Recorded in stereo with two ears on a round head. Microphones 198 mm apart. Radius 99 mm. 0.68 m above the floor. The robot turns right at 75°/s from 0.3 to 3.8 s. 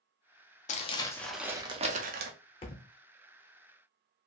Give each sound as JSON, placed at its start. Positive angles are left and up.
{"t": 0.7, "sound": "crumpling", "azimuth_deg": 135, "distance_m": 0.5}
{"t": 2.6, "sound": "a thud", "side_deg": 25, "distance_m": 0.5}